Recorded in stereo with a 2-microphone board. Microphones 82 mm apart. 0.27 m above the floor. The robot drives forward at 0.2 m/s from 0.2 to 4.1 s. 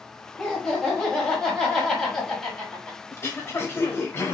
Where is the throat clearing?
30° left (ahead or behind), 0.8 m.